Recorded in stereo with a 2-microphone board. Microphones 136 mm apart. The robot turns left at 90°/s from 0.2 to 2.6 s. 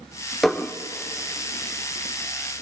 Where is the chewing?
I don't hear chewing.